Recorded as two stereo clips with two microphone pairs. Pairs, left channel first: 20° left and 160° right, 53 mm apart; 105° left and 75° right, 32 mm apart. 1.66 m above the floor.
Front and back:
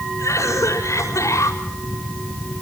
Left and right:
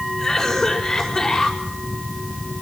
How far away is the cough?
About 6 m.